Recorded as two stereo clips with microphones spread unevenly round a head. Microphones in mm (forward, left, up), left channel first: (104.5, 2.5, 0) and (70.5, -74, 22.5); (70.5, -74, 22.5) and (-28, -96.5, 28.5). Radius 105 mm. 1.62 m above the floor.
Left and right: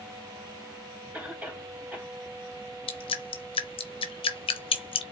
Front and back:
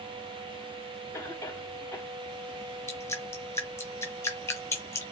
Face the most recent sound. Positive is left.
turn(degrees=90)